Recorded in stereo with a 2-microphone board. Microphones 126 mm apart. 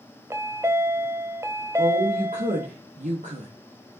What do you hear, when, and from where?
0.3 s a chime: 25° right (ahead or behind), 0.7 m
1.8 s a woman speaking: 80° right, 1.5 m